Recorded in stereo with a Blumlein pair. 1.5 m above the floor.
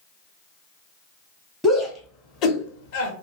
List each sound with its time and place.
1.6 s a shout: straight ahead, 0.8 m; by 3.1 s 55° left, 1.1 m